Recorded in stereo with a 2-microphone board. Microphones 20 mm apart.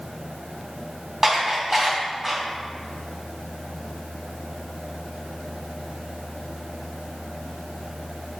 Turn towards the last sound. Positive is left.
turn(degrees=-15)  # may be behind; listen again after turning